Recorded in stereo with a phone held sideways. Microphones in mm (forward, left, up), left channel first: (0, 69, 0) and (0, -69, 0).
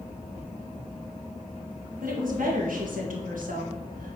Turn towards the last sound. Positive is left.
turn(degrees=-80)